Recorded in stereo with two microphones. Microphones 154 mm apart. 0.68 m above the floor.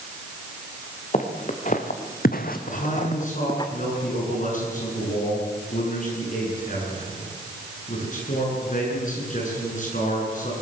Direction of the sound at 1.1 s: 50° left (ahead or behind).